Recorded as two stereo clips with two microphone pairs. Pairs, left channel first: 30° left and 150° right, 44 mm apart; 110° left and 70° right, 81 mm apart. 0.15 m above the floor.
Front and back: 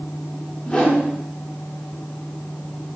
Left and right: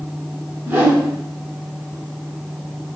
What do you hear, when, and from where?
0.7 s a whoosh: 25° right, 1.1 m